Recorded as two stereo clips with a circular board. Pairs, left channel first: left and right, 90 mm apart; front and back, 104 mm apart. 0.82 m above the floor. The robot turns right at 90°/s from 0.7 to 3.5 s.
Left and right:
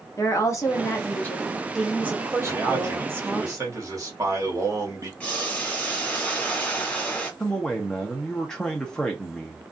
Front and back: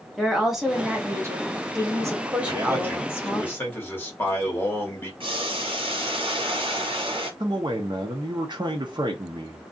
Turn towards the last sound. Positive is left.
turn(degrees=170)